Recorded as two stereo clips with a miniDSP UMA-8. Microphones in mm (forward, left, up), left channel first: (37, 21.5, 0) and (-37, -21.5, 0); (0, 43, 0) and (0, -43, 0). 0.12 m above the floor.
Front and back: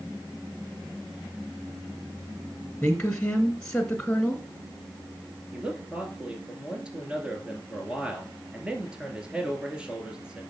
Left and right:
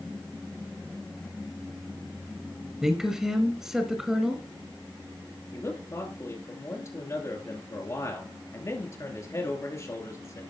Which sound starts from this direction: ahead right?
A woman speaking, at 2.8 s.